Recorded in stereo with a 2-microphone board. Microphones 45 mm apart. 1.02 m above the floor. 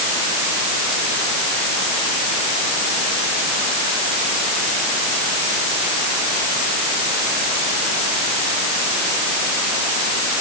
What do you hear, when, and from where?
Only background noise.